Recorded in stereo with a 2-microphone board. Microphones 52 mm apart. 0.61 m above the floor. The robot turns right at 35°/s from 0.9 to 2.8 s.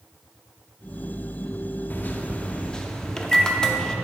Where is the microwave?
135° left, 0.6 m; by 4.0 s 165° left, 0.6 m.